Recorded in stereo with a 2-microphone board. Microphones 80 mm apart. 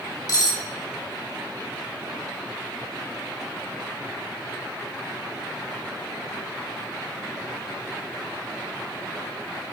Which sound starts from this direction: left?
Cutlery clinking, at 0.3 s.